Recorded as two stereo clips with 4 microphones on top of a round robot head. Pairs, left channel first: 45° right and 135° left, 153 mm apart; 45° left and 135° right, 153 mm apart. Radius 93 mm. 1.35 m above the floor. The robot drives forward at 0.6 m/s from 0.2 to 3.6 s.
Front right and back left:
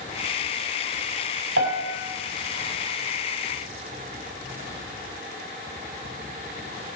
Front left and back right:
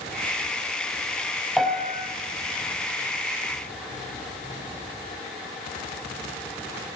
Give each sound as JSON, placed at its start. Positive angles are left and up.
{"t": 1.6, "sound": "a piano", "azimuth_deg": 140, "distance_m": 5.0}